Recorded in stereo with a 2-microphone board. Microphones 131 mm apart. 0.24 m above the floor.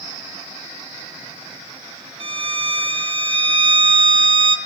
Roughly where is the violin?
Right.